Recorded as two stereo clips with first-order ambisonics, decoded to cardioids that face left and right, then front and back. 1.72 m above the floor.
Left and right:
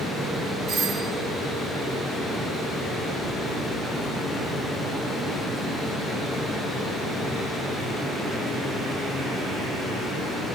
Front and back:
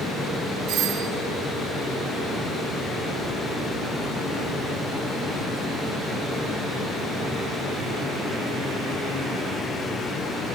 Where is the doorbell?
140° right, 1.5 m.